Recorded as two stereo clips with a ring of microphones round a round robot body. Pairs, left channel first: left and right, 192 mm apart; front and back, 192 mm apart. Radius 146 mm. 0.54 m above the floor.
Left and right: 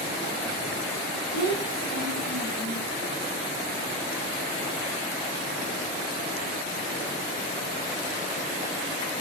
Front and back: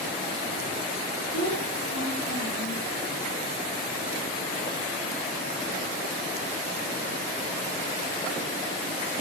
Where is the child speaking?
135° right, 3 m; by 2.9 s 165° right, 2.5 m.